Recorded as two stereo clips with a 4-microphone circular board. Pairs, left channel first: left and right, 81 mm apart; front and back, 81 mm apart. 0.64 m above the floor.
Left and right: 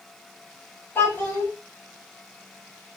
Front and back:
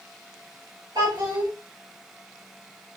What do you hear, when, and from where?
0.9 s a child speaking: 155° left, 2.0 m